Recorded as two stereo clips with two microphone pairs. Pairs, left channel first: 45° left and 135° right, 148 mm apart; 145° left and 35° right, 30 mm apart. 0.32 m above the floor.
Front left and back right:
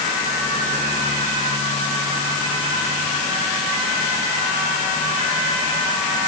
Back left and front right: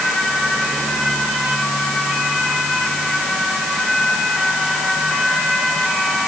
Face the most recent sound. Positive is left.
No sound to turn to.